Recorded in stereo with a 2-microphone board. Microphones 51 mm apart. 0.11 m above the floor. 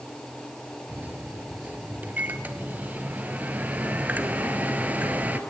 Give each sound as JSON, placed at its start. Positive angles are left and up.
{"t": 0.9, "sound": "a microwave", "side_deg": -35, "distance_m": 1.6}